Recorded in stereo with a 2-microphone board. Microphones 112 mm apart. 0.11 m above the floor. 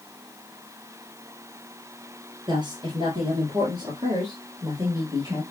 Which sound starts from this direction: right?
A woman speaking, at 2.5 s.